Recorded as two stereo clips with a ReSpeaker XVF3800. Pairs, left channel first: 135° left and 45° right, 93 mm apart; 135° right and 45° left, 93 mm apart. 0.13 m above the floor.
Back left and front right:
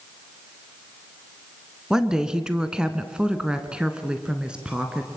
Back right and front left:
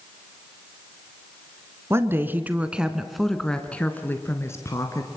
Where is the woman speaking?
30° left, 1.6 m; by 5.1 s 120° right, 1.8 m.